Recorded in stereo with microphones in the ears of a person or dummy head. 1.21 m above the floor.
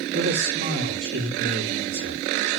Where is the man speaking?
40° right (ahead or behind), 2.5 m.